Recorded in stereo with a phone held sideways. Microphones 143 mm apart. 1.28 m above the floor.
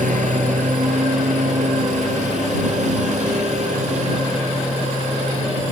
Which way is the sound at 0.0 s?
75° right (ahead or behind).